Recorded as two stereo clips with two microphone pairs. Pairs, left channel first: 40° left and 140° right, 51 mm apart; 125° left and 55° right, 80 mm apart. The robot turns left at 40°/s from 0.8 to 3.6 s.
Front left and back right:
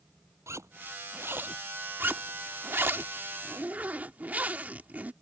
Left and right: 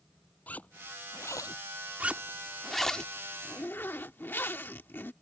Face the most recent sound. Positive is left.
turn(degrees=175)